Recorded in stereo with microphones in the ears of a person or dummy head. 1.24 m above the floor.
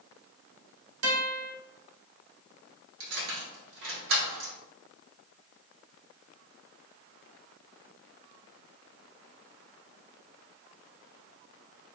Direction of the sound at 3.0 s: 75° right (ahead or behind).